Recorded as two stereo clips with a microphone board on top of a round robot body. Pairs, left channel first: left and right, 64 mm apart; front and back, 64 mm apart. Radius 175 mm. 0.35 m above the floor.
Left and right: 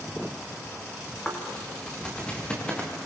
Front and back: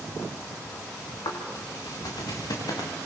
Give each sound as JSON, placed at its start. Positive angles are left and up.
{"t": 1.2, "sound": "footsteps", "azimuth_deg": 15, "distance_m": 5.0}